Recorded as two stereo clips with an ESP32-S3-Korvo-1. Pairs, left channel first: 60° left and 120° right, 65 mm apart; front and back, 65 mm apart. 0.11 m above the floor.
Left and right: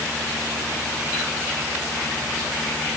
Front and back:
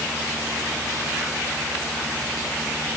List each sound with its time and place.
Only background noise.